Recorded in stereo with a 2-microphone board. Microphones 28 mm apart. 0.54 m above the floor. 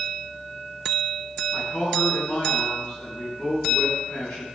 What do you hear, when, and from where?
1.5 s a man speaking: 50° left (ahead or behind), 5.5 m